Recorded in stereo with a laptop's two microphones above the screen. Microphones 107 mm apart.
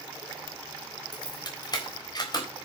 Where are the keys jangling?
40° left (ahead or behind), 3.5 m.